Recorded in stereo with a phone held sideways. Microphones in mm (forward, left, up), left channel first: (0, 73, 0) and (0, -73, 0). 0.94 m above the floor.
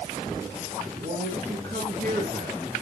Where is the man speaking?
60° right (ahead or behind), 6.5 m.